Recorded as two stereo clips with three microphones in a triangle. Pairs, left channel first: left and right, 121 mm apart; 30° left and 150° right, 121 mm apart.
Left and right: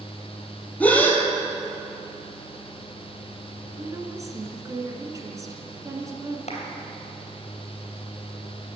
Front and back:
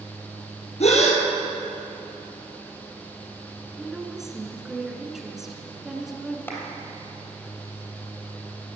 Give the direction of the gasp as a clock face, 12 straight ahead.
12 o'clock.